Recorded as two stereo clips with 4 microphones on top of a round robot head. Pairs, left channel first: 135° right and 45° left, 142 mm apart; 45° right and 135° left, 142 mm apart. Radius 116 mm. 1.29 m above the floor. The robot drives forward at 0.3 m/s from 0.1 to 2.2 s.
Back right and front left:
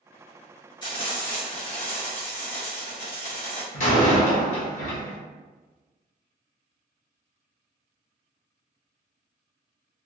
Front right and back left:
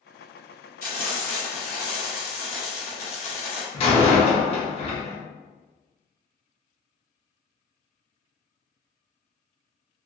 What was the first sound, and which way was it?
Frying, 75° right.